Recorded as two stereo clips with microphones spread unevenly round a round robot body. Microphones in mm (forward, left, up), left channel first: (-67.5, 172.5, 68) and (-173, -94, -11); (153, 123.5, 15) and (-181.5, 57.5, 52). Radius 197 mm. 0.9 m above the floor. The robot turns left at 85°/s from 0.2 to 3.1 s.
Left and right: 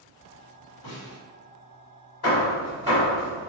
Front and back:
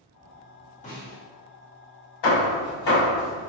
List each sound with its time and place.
0.8 s a snare drum: 75° left, 1.7 m; by 1.2 s 45° left, 1.7 m
2.2 s hammering: 15° left, 1.3 m; by 3.5 s 60° right, 1.3 m